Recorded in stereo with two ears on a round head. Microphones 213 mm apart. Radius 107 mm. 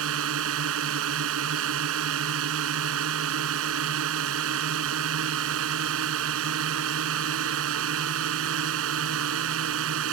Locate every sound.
0.0 s a drone: 60° right (ahead or behind)